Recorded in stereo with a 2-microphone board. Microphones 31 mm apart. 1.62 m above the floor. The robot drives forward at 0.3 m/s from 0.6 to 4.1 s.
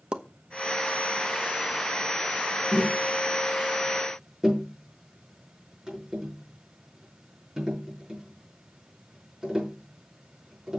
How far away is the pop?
About 1.1 m.